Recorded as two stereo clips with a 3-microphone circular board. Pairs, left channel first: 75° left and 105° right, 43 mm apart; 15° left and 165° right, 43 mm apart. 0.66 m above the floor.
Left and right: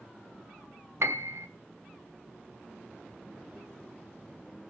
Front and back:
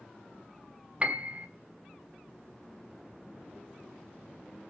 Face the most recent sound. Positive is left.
turn(degrees=-105)